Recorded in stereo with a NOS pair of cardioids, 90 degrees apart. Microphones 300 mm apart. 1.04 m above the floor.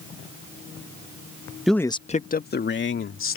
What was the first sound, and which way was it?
A man speaking, straight ahead.